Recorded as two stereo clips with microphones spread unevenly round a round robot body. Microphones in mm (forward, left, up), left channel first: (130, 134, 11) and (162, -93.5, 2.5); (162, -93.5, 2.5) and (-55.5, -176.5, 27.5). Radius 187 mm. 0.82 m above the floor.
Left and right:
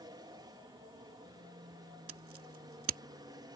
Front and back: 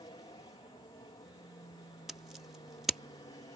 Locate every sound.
0.0 s an aircraft: 25° right
2.1 s scissors: 70° right